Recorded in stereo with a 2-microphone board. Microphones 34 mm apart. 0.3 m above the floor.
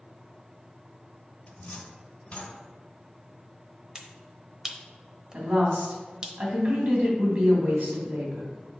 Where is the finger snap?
20° right (ahead or behind), 0.8 m.